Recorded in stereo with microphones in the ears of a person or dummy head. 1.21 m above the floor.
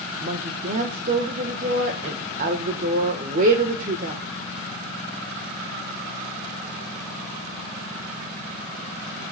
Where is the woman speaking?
45° right (ahead or behind), 1.2 m.